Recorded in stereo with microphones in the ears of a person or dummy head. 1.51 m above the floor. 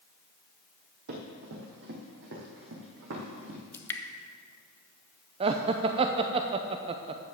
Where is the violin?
No violin in this recording.